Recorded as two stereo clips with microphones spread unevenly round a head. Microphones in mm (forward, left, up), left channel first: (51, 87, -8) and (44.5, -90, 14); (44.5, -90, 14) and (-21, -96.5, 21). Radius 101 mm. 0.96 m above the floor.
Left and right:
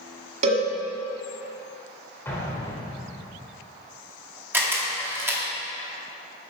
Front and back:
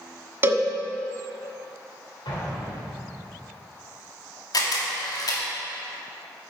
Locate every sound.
0.4 s a cowbell: 135° right, 1.3 m
2.2 s an explosion: 10° left, 2.5 m
4.5 s a camera shutter: 15° right, 2 m